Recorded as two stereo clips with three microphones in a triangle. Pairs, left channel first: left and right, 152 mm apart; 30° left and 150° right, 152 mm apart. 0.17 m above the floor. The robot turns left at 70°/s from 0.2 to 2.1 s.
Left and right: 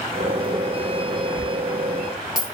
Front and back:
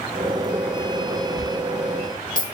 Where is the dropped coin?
125° right, 1.7 m; by 2.5 s straight behind, 1.7 m.